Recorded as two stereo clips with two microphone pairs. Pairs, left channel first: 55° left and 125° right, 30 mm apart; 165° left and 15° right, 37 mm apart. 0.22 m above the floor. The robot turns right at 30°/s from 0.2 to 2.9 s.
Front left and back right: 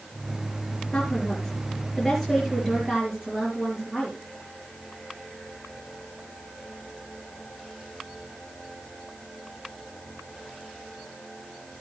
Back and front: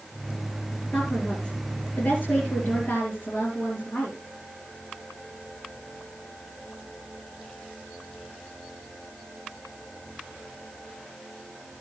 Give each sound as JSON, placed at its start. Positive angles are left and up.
{"t": 0.9, "sound": "a woman speaking", "azimuth_deg": 120, "distance_m": 4.5}